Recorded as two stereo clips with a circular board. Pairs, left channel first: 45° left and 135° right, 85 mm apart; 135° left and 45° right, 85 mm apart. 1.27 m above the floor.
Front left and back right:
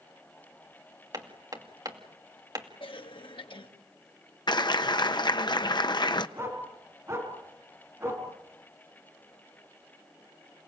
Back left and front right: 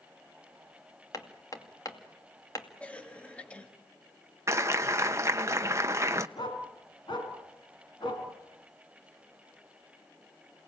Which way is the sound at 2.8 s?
60° left.